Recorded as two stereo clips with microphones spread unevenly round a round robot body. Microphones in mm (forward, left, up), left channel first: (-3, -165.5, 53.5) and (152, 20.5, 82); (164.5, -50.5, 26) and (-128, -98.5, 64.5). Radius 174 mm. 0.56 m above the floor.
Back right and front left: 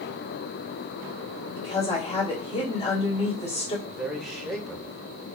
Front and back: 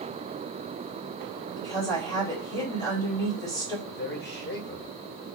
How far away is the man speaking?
About 2 m.